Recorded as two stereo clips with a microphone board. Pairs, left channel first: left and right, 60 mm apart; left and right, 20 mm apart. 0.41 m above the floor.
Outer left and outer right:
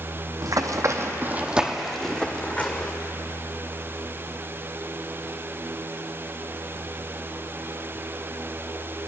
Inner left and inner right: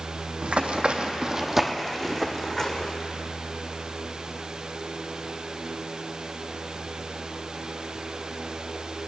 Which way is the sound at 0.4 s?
70° right (ahead or behind).